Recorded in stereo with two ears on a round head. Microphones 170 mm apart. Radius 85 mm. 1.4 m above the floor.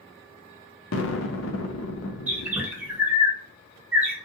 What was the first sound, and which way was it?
An explosion, 75° left (ahead or behind).